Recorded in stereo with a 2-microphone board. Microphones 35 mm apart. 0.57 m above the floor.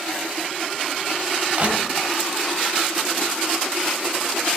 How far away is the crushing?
About 1.7 m.